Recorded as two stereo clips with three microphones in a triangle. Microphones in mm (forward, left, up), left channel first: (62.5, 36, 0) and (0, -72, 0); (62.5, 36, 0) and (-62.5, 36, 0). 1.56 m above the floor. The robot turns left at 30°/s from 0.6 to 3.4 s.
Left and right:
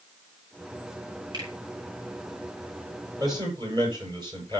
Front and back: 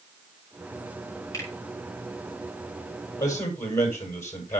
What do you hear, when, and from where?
1.3 s a finger snap: 65° right, 6.5 m; by 1.5 s 70° right, 6.5 m
3.2 s a man speaking: 60° right, 7.5 m; by 4.6 s 65° right, 7.5 m